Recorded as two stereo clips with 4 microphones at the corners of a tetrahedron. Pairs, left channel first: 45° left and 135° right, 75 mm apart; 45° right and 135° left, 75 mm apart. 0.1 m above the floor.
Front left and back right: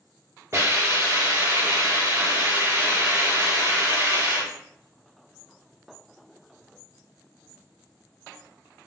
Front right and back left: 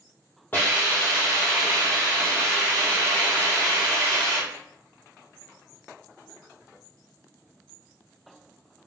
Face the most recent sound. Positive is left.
turn(degrees=-100)